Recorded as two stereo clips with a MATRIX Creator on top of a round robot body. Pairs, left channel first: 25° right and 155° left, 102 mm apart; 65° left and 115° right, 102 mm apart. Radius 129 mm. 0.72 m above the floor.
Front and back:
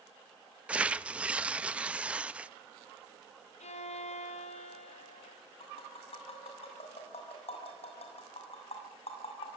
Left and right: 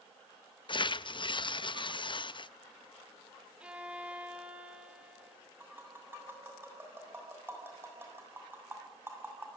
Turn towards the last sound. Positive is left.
turn(degrees=-45)